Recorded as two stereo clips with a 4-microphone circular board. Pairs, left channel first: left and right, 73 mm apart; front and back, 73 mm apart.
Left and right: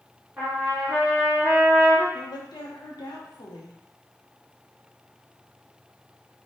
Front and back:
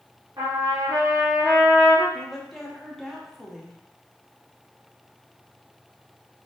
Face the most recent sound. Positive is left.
turn(degrees=90)